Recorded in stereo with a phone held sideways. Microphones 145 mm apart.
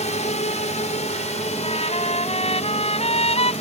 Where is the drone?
50° left (ahead or behind).